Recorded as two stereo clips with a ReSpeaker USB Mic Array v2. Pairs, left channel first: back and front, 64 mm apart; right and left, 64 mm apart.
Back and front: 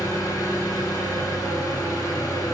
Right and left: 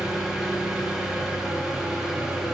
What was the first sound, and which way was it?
An engine running, 170° left.